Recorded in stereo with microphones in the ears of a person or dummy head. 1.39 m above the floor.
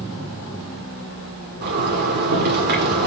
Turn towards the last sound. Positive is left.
turn(degrees=-40)  # may be behind; listen again after turning